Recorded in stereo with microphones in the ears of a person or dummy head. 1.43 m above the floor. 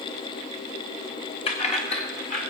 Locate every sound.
1.5 s keys jangling: 30° left (ahead or behind), 1.2 m; by 2.5 s 40° left (ahead or behind), 2 m